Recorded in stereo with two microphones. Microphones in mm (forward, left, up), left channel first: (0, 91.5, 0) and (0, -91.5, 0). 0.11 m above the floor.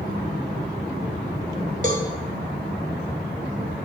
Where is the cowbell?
45° right (ahead or behind), 0.6 m.